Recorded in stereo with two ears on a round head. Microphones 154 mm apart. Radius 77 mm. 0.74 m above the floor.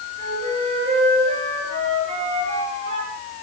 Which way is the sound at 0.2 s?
40° right (ahead or behind).